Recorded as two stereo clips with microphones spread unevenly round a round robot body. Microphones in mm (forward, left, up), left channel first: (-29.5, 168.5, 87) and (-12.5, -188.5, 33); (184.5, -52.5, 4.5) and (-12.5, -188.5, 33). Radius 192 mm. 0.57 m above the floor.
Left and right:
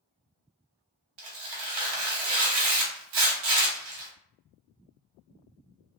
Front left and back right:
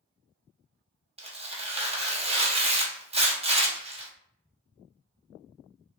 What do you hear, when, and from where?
1.2 s tearing paper: 75° right, 0.9 m